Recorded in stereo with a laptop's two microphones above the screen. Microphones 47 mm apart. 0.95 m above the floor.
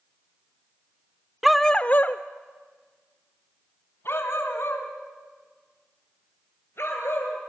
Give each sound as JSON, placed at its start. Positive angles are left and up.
{"t": 1.4, "sound": "a dog barking", "side_deg": -5, "distance_m": 0.6}